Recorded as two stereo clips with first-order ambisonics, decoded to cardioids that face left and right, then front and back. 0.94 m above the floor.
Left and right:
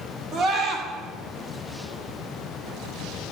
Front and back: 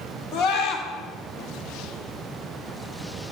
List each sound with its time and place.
0.3 s a scream: 35° right, 1.5 m